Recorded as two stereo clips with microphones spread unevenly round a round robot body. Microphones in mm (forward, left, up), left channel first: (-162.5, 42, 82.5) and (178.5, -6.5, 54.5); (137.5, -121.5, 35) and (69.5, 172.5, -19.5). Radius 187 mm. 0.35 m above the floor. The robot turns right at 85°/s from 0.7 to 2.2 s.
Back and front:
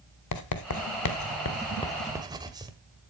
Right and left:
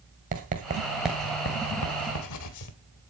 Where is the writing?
150° left, 1.6 m; by 2.7 s 80° right, 1.6 m.